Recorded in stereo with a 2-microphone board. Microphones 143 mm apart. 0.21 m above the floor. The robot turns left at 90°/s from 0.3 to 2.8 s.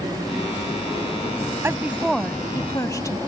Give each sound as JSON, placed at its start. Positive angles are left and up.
{"t": 1.6, "sound": "a woman speaking", "side_deg": -20}